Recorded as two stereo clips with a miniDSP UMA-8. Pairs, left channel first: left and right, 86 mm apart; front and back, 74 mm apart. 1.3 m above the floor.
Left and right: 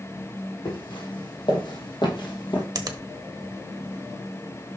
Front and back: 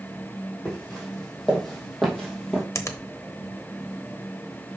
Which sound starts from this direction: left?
Footsteps, at 0.7 s.